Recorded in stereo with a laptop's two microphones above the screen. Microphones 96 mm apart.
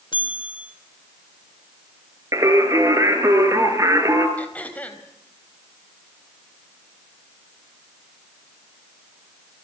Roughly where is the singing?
Right.